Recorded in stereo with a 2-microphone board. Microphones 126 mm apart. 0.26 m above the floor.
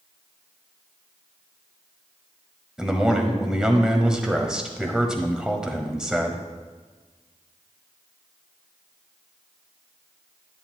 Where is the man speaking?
5° right (ahead or behind), 1.0 m.